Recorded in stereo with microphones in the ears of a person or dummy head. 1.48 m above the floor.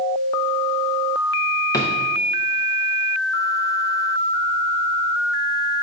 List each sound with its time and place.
1.7 s a drawer: 20° left (ahead or behind), 0.8 m